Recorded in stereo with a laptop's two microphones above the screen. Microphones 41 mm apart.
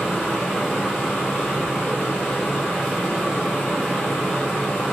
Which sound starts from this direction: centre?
A fan, at 0.0 s.